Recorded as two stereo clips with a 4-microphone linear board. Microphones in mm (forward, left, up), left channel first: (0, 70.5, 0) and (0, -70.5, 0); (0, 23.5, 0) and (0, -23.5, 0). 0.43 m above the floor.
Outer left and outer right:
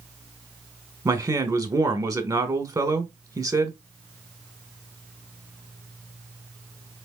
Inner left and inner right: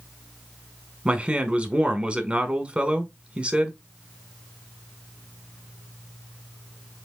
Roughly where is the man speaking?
Right.